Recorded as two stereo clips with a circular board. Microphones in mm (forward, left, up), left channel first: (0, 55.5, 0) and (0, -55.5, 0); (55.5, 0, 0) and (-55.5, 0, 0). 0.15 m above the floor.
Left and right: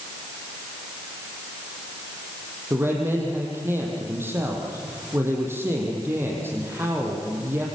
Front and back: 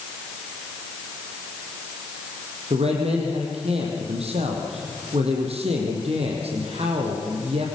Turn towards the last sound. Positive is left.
turn(degrees=-160)